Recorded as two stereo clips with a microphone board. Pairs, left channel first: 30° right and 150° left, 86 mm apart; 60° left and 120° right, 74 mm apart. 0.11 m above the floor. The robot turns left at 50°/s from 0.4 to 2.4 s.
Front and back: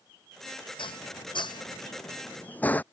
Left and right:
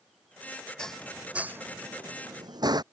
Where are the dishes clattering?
20° right; by 2.8 s 100° right.